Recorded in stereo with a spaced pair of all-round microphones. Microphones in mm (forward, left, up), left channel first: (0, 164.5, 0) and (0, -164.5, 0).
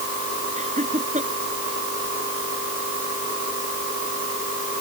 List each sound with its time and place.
0.6 s laughter: 20° right (ahead or behind)